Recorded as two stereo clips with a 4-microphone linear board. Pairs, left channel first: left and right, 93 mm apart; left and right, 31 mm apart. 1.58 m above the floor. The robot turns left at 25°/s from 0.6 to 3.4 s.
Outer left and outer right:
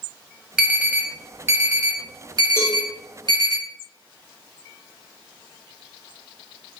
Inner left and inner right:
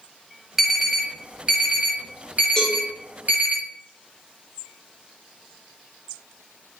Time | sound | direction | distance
0.6 | an alarm | 15° right (ahead or behind) | 1.2 m
2.6 | a cowbell | 25° left (ahead or behind) | 1.2 m